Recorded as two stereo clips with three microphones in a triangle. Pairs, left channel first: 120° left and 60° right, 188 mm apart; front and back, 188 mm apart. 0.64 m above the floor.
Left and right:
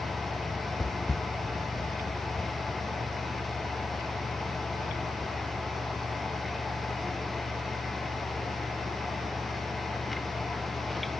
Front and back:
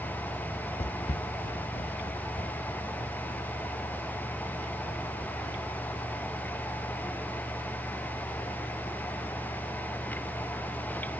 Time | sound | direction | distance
0.8 | footsteps | 25° left | 0.7 m